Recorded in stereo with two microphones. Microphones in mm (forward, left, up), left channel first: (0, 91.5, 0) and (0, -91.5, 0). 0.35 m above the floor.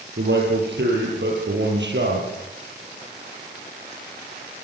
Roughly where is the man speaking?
Right.